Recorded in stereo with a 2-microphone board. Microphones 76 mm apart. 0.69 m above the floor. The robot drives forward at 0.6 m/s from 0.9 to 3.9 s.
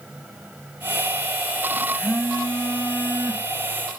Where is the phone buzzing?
30° left (ahead or behind), 0.6 m; by 4.0 s 10° left (ahead or behind), 1.6 m.